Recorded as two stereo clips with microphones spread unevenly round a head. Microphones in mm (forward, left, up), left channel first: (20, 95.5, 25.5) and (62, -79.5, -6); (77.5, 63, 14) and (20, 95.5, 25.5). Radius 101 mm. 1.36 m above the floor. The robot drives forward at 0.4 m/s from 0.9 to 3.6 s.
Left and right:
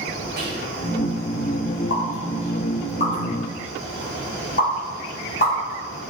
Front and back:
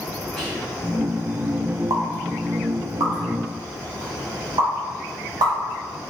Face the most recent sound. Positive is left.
turn(degrees=155)